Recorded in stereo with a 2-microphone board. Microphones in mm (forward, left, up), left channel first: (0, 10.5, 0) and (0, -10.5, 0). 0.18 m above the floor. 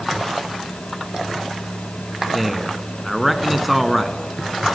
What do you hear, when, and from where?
2.3 s a man speaking: centre (ahead or behind), 1.4 m